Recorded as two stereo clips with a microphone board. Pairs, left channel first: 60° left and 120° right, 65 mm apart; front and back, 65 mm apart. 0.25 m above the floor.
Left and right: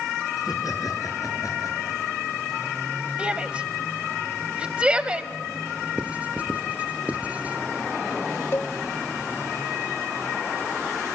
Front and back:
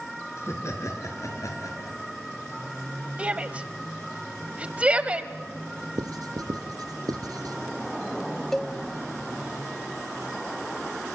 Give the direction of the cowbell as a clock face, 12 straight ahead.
9 o'clock.